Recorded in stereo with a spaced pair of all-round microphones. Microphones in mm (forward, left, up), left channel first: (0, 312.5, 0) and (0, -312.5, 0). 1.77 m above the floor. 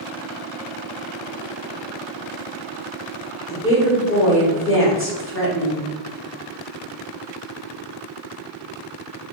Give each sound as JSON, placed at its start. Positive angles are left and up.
{"t": 3.5, "sound": "a woman speaking", "side_deg": 20, "distance_m": 0.8}